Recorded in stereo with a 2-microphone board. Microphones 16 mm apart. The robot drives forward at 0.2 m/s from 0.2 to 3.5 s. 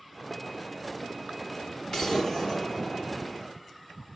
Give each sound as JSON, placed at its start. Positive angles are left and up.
{"t": 1.9, "sound": "an explosion", "side_deg": 40, "distance_m": 2.0}